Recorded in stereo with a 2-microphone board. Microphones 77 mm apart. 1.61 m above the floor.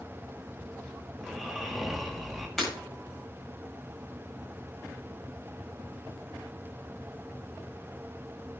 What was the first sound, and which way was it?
Snoring, 5° right (ahead or behind).